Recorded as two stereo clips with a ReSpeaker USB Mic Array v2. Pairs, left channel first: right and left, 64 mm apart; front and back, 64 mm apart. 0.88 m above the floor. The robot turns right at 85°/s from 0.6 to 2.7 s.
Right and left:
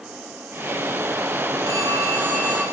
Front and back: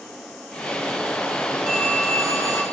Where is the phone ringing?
100° left, 4 m; by 2.6 s straight behind, 4 m.